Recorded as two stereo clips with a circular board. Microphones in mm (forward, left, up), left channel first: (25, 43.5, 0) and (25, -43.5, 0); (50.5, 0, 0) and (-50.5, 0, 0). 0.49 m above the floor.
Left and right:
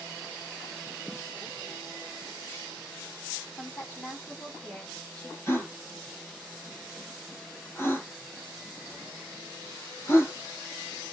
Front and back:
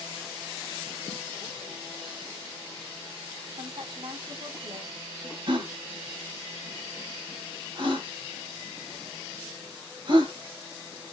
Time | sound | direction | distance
3.6 | a woman speaking | 165° left | 4.5 m
5.5 | a gasp | 150° left | 3.5 m